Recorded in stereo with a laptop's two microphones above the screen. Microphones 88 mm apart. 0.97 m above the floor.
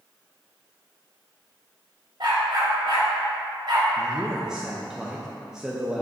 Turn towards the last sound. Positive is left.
turn(degrees=-10)  # may be behind; listen again after turning